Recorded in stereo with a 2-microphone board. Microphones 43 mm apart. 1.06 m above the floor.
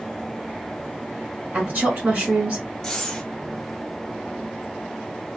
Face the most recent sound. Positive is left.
turn(degrees=10)  # may be behind; listen again after turning